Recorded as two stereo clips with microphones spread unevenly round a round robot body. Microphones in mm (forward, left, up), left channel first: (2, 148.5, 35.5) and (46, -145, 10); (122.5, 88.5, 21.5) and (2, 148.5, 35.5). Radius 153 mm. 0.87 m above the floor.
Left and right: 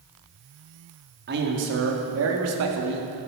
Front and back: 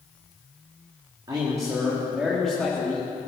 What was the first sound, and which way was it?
A man speaking, 135° right.